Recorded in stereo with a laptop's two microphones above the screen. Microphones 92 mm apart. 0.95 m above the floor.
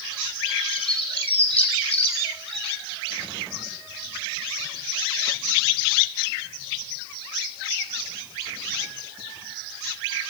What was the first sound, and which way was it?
A bird, 80° left.